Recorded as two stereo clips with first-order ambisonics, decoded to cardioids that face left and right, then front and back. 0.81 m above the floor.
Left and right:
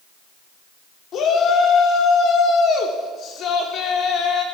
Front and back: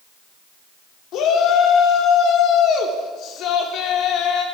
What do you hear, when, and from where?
1.1 s a shout: 40° left, 2.0 m